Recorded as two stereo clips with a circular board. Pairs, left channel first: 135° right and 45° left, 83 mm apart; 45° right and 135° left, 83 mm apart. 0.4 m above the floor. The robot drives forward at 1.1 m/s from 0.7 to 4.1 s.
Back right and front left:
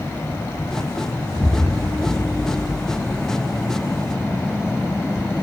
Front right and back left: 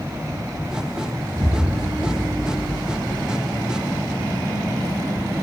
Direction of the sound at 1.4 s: 130° left.